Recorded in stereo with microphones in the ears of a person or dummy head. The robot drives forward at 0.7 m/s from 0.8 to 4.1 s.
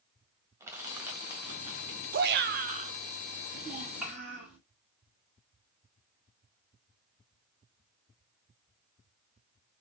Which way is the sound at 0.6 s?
10° right (ahead or behind).